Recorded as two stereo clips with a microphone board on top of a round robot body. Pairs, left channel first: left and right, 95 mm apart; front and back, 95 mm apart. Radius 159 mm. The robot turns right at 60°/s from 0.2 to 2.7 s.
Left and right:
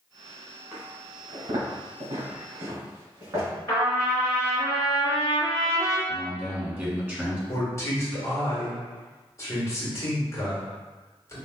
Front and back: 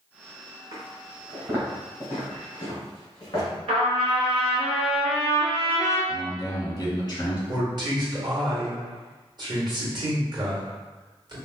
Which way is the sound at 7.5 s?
145° left.